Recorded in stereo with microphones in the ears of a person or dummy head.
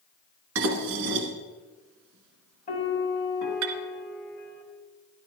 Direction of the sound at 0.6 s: 70° right (ahead or behind).